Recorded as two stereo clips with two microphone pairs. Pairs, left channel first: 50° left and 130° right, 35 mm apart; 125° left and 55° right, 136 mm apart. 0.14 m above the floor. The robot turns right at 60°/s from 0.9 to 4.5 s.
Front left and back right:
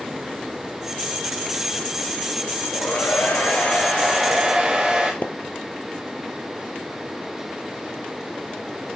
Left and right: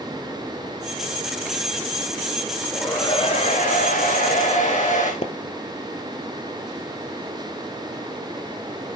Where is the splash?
85° left, 1.4 m.